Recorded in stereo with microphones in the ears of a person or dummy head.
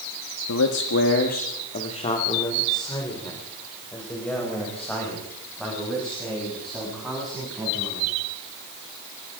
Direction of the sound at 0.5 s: 80° left.